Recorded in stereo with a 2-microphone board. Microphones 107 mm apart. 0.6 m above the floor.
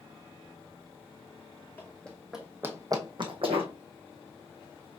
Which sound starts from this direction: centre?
Running footsteps, at 1.8 s.